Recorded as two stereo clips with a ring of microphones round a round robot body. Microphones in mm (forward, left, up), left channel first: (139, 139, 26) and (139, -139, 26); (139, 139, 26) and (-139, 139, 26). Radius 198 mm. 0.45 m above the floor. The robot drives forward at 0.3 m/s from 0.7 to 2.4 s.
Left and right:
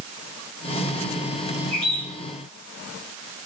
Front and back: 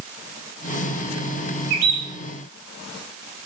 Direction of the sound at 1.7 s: 145° left.